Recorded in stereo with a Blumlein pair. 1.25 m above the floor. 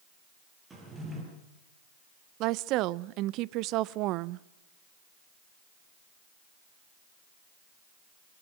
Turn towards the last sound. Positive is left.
turn(degrees=-40)